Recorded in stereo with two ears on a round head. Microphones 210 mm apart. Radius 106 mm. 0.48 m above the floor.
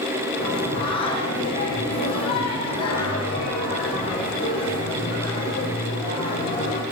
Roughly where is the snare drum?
No snare drum in this recording.